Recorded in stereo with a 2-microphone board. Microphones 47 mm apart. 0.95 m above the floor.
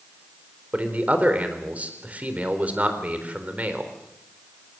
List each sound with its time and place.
0.7 s a man speaking: 30° right (ahead or behind), 4 m